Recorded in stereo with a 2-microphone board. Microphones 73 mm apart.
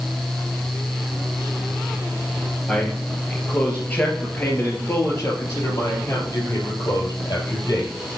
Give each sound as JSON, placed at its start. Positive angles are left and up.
{"t": 2.7, "sound": "a man speaking", "side_deg": 10, "distance_m": 3.0}